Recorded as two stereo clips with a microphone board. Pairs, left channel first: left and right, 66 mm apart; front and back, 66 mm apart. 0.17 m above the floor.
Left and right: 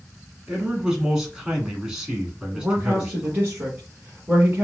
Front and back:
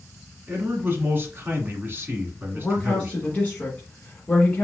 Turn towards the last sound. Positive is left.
turn(degrees=-45)